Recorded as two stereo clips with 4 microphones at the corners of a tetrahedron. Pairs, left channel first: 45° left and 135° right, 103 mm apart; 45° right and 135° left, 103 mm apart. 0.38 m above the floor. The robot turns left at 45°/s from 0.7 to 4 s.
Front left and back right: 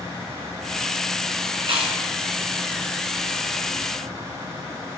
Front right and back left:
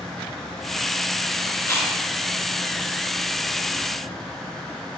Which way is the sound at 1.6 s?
105° right.